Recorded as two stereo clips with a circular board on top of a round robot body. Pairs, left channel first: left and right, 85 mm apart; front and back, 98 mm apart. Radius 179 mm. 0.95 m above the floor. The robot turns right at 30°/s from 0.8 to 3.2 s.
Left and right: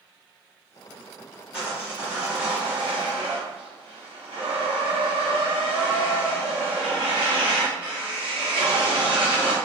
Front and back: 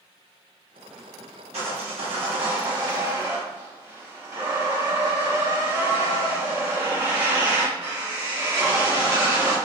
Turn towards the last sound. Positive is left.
turn(degrees=-115)